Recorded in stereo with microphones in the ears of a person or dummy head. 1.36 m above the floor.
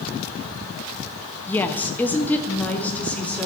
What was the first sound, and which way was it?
A woman speaking, 15° left (ahead or behind).